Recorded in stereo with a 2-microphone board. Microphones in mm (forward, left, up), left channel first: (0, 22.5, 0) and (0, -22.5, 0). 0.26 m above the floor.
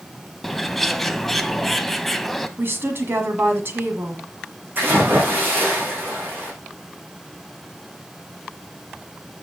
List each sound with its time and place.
0.4 s a bird: 5° left (ahead or behind), 0.6 m
2.6 s a woman speaking: 55° right (ahead or behind), 1.7 m
4.8 s a splash: 55° right (ahead or behind), 5.5 m